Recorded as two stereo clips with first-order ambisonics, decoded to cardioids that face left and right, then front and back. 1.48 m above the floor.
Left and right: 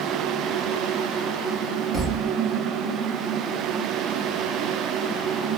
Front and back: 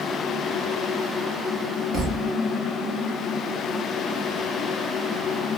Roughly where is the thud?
Behind.